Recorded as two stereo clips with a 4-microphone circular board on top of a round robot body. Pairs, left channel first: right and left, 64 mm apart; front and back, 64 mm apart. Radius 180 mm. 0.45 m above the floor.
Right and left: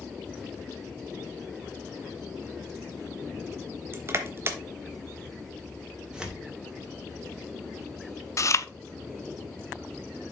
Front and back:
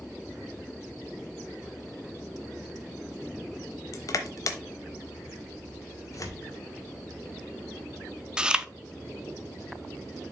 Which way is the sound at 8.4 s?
105° right.